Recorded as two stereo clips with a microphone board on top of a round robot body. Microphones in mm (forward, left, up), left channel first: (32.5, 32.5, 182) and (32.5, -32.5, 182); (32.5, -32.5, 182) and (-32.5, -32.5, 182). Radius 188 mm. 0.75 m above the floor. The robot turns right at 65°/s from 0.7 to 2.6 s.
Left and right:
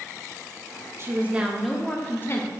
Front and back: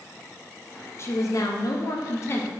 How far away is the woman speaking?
About 0.8 m.